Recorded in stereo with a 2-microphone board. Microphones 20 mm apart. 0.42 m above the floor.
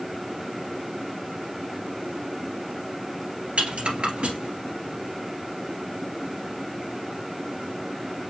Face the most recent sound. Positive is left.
turn(degrees=-85)